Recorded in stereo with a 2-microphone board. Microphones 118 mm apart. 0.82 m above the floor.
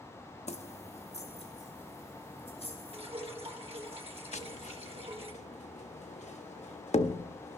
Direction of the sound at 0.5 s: 65° left (ahead or behind).